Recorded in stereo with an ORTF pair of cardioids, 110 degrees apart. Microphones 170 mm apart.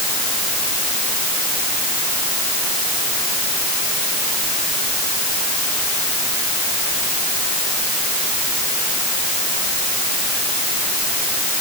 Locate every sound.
Only background noise.